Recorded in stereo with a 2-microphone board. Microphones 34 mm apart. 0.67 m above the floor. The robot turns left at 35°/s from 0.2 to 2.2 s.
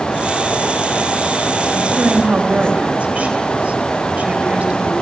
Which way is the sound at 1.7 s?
30° right (ahead or behind).